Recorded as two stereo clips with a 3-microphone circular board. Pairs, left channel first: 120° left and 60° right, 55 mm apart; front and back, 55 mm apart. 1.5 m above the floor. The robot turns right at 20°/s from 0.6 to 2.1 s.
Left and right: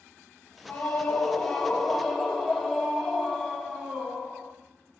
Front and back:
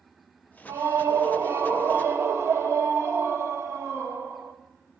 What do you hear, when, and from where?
0.7 s a scream: 175° right, 1.5 m; by 4.5 s 145° right, 1.5 m